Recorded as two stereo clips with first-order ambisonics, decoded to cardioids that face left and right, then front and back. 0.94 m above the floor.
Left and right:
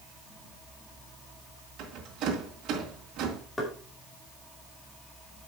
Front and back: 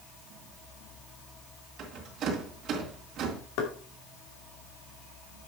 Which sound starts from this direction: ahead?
Knocking, at 3.6 s.